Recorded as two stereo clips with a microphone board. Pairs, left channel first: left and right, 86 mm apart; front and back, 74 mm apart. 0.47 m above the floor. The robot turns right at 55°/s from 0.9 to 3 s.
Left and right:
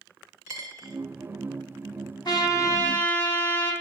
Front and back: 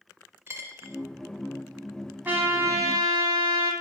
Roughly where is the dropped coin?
Behind right.